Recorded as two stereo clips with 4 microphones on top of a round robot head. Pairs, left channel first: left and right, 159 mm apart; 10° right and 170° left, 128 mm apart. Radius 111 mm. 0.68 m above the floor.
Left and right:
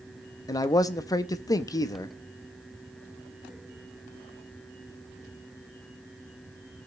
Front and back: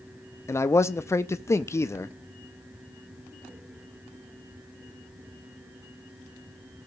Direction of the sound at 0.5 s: 45° left.